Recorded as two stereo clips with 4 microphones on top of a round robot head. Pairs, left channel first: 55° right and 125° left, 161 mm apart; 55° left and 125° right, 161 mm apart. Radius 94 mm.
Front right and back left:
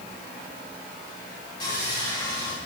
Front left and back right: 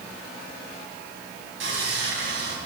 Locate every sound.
1.6 s sawing: 115° right, 8 m